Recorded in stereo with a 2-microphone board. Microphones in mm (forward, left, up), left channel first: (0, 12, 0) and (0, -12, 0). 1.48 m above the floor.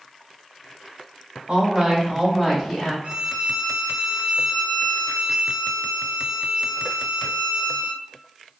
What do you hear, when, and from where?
1.5 s a woman speaking: 45° right (ahead or behind), 1.2 m; by 2.9 s 10° left (ahead or behind), 2 m
3.0 s a violin: 65° right (ahead or behind), 0.8 m